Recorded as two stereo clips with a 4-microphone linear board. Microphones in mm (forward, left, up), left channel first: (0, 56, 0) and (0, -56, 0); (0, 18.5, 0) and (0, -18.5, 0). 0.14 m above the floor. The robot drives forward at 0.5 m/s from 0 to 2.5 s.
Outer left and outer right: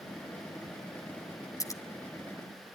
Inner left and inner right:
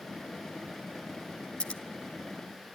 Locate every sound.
1.6 s scissors: 30° left (ahead or behind), 1.3 m